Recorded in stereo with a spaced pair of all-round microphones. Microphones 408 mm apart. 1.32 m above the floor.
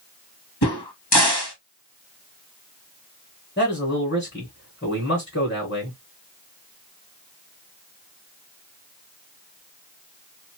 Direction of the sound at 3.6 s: 30° left (ahead or behind).